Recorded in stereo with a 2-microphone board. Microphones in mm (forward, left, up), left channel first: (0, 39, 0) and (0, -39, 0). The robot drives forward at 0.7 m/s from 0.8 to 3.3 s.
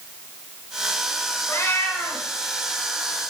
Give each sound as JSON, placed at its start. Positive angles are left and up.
{"t": 1.5, "sound": "a cat meowing", "side_deg": 35, "distance_m": 1.9}